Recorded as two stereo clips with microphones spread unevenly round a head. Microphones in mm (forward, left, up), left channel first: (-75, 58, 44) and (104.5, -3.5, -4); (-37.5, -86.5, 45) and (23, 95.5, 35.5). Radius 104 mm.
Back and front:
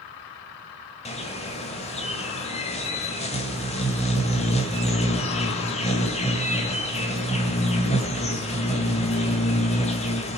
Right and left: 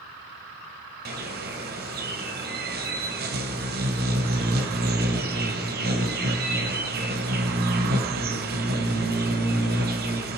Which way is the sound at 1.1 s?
110° left.